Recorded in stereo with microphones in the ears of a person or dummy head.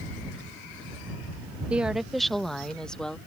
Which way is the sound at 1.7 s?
10° right (ahead or behind).